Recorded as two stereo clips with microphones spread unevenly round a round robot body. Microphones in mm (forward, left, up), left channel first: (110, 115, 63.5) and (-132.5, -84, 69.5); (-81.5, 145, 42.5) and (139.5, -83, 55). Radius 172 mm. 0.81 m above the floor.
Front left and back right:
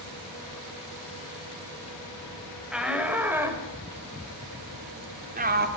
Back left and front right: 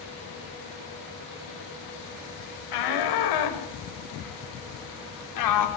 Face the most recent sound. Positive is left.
turn(degrees=160)